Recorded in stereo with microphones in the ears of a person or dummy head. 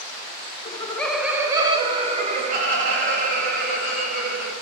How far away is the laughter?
About 0.5 m.